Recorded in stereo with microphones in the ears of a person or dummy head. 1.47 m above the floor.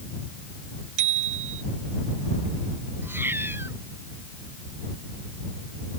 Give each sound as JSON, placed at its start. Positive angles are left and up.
{"t": 1.0, "sound": "a bicycle bell", "side_deg": -55}
{"t": 3.0, "sound": "a cat meowing", "side_deg": -10}